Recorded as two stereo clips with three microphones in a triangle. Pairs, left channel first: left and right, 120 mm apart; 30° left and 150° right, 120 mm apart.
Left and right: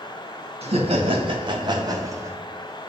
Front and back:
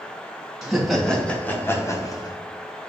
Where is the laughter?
65° right, 1.7 m; by 2.4 s 25° right, 1.4 m.